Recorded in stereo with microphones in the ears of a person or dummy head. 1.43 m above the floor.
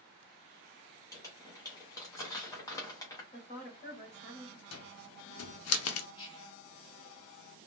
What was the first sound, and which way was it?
Crumpling, 15° left (ahead or behind).